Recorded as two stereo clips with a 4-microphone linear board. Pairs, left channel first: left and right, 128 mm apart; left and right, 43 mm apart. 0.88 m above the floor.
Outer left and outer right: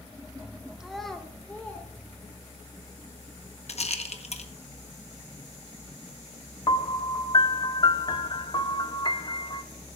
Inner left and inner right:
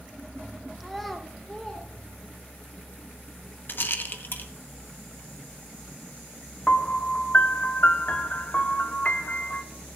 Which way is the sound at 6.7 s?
40° left (ahead or behind).